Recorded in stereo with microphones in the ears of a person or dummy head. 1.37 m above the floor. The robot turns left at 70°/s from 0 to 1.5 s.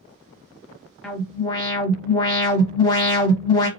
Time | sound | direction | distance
1.0 | an alarm | straight behind | 1.0 m